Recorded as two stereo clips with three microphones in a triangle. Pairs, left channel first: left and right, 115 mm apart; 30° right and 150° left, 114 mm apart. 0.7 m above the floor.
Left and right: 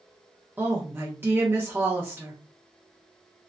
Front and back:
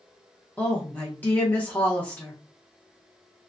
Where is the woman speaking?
70° right, 0.9 m.